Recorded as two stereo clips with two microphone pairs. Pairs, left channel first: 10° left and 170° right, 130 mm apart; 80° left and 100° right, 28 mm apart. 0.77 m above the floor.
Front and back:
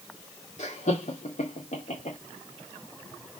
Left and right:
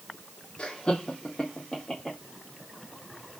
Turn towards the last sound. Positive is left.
turn(degrees=0)